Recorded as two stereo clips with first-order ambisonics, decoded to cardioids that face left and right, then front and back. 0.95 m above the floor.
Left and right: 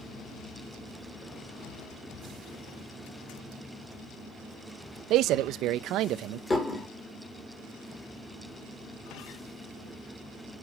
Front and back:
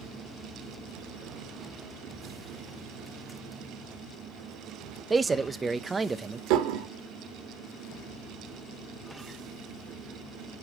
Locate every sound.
5.1 s a man speaking: 105° right, 0.5 m
6.5 s dishes clattering: 170° left, 1.6 m